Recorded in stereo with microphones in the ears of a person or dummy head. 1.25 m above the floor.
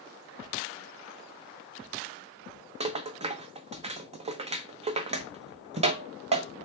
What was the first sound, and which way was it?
A rattle, 35° right (ahead or behind).